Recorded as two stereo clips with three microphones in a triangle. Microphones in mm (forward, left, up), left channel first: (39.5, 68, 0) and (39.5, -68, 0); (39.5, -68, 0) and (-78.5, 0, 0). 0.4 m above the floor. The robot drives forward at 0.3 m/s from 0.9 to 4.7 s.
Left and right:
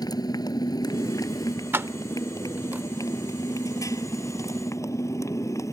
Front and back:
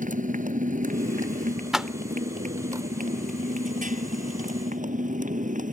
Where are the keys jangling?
125° right; by 2.9 s 160° right.